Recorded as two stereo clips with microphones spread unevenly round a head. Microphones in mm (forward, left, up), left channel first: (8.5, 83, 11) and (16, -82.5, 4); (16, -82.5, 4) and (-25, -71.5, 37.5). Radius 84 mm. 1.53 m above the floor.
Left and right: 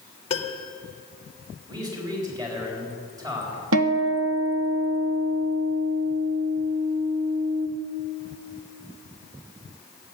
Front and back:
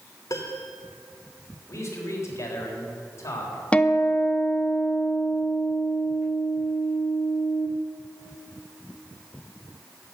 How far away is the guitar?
About 1.3 m.